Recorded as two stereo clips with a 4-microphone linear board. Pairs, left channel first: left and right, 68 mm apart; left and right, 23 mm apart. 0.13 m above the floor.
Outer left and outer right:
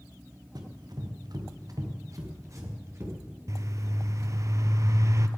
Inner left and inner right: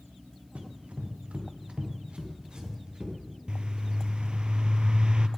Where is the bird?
50° right (ahead or behind), 0.7 m.